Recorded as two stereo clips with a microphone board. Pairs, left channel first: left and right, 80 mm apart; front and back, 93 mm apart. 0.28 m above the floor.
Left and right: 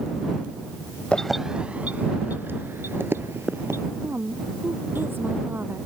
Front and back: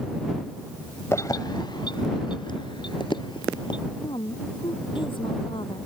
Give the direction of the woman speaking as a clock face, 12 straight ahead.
1 o'clock.